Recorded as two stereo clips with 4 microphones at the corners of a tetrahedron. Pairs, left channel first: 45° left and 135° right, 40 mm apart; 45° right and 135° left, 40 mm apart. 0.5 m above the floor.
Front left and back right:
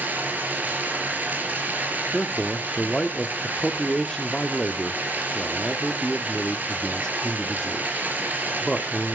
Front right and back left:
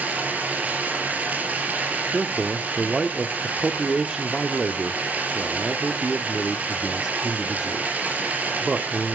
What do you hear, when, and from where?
0.0 s running water: 175° right, 4 m
2.1 s a man speaking: 100° left, 0.8 m